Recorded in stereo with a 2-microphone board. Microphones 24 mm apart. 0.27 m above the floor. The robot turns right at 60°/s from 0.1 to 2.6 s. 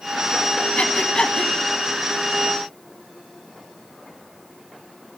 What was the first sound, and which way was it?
Breathing, 55° left (ahead or behind).